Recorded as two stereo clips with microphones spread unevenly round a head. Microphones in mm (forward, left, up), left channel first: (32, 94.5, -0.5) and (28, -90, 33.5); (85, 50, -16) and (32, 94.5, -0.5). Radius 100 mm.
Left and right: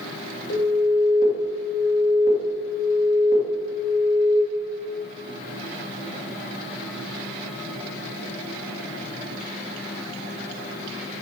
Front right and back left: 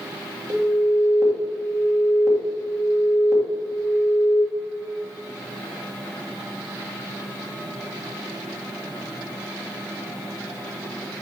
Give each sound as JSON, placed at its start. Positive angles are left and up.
{"t": 0.5, "sound": "an alarm", "azimuth_deg": 90, "distance_m": 2.0}